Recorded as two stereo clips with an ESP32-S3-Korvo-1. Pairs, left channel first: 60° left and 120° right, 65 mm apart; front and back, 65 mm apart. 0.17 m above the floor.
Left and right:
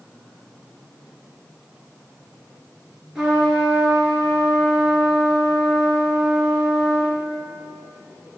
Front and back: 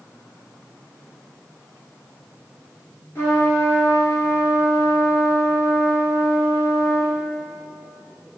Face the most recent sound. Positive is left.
turn(degrees=-40)